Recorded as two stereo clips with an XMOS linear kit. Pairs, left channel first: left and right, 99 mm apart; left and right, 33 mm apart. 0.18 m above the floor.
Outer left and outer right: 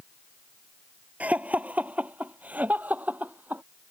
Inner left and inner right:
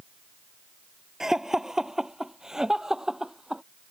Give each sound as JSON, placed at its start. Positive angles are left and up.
{"t": 1.2, "sound": "laughter", "side_deg": -15}